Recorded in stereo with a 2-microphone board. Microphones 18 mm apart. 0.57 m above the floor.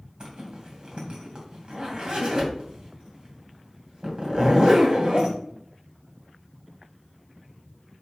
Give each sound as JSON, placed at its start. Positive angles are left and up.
{"t": 0.2, "sound": "a zipper", "side_deg": -55, "distance_m": 2.5}